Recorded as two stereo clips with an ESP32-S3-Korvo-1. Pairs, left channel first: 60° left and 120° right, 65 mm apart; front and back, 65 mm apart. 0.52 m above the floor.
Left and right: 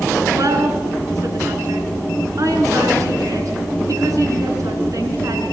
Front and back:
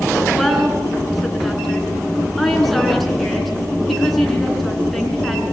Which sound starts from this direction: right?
A woman speaking, at 0.3 s.